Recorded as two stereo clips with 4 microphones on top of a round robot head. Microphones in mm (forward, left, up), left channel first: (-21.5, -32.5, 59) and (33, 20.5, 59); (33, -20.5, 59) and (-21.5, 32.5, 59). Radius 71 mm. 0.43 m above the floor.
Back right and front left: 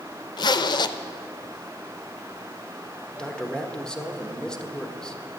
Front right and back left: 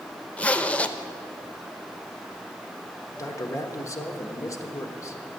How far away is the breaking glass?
No breaking glass in this recording.